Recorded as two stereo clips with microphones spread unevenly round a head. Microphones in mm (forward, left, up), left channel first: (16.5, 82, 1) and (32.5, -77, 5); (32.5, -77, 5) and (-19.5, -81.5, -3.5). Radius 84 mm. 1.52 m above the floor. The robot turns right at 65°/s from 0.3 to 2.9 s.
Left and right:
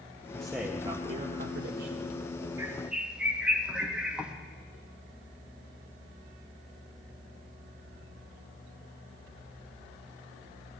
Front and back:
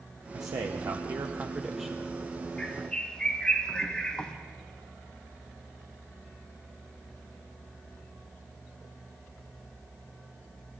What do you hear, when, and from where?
0.3 s a man speaking: straight behind, 0.7 m; by 2.1 s 70° right, 0.7 m
2.6 s a bird: 35° right, 0.9 m; by 4.3 s 10° right, 0.9 m